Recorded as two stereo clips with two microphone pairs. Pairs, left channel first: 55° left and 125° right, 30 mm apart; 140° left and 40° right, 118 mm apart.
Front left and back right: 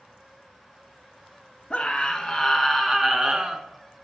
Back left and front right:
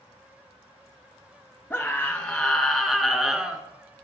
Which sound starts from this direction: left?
A scream, at 1.7 s.